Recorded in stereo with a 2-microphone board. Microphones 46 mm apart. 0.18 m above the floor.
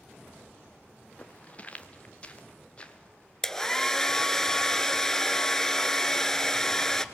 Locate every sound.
1.2 s footsteps: 30° left (ahead or behind), 1.5 m; by 3.3 s 20° left (ahead or behind), 3 m
3.4 s a hair dryer: 10° left (ahead or behind), 0.9 m